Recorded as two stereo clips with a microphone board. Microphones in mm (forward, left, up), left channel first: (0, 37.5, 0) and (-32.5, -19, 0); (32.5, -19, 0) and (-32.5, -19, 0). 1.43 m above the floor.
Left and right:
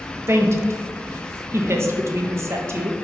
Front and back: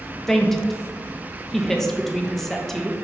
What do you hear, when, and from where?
0.3 s a woman speaking: 80° right, 0.5 m